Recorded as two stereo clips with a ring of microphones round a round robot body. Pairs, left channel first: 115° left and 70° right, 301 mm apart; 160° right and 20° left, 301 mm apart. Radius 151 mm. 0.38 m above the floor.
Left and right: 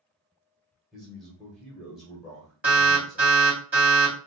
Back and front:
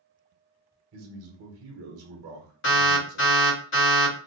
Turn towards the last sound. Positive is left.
turn(degrees=-150)